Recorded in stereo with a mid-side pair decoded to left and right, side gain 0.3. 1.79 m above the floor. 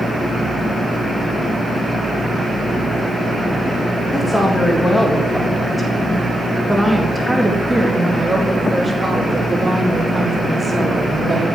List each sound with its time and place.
4.1 s a woman speaking: 20° left, 3 m; by 11.6 s 30° right, 5 m